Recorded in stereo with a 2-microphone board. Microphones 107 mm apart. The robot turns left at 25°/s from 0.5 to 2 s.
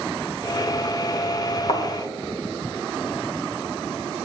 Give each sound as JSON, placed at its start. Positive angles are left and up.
{"t": 1.7, "sound": "a thud", "side_deg": 70, "distance_m": 2.5}